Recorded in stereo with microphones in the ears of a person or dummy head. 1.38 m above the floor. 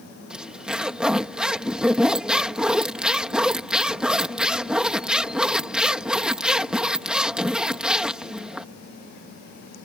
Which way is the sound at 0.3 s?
5° right (ahead or behind).